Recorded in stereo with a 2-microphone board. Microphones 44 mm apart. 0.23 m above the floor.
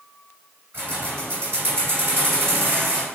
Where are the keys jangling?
50° right (ahead or behind), 1.8 m.